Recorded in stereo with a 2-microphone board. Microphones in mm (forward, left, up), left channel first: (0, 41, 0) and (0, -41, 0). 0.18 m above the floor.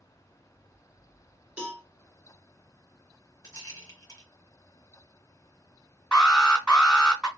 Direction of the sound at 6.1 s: 15° left (ahead or behind).